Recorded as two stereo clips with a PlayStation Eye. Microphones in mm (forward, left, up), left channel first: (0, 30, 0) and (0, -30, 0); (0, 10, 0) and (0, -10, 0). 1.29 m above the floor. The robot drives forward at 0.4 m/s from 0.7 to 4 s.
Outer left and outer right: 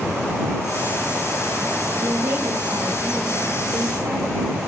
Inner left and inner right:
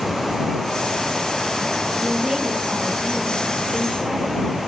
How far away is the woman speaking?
About 2.5 m.